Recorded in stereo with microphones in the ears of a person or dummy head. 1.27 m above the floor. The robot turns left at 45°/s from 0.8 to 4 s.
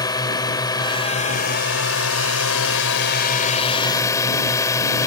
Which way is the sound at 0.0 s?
160° left.